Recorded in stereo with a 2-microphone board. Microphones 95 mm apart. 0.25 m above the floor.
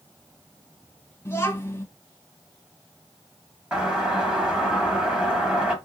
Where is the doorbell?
10° right (ahead or behind), 1.6 m.